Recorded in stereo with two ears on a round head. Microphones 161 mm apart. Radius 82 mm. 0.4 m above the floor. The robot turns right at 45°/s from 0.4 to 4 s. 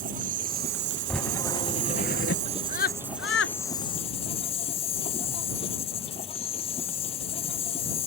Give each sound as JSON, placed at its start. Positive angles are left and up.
{"t": 0.0, "sound": "an insect", "azimuth_deg": -130}
{"t": 1.1, "sound": "writing", "azimuth_deg": 0}
{"t": 2.5, "sound": "a scream", "side_deg": 35}